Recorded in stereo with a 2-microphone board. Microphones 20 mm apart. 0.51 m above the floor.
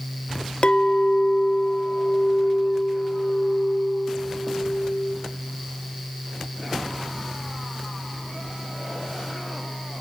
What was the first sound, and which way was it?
A clink, 55° left (ahead or behind).